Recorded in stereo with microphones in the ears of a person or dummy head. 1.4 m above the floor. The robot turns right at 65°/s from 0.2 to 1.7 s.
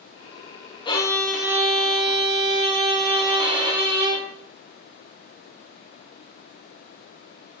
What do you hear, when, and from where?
0.8 s a violin: 150° left, 0.6 m; by 4.2 s 155° right, 0.6 m